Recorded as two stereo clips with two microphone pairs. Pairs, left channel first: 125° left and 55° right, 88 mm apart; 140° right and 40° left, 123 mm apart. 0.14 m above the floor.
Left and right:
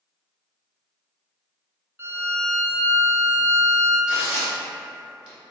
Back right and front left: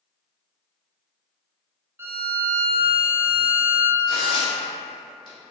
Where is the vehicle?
I don't hear a vehicle.